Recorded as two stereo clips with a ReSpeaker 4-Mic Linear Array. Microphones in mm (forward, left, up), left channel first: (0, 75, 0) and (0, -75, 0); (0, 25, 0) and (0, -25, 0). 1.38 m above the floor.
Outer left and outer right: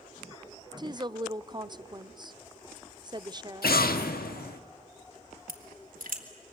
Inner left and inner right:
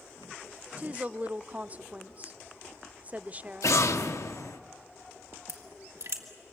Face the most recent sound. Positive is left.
turn(degrees=-65)  # may be behind; listen again after turning